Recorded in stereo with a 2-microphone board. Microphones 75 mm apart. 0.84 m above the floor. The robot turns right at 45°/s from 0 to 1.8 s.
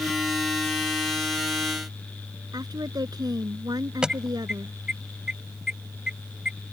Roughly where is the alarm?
Centre.